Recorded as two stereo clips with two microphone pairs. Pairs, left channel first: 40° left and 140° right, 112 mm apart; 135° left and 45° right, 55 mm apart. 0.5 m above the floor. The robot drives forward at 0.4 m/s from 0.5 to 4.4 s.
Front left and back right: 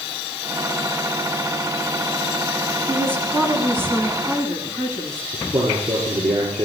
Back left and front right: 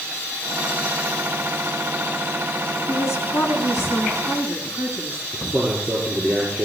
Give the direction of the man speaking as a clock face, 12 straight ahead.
5 o'clock.